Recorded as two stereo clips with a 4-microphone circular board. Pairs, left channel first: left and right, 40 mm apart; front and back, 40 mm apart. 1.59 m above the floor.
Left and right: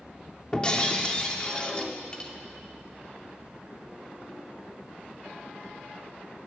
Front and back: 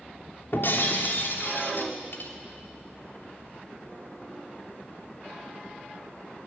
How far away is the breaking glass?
About 3 m.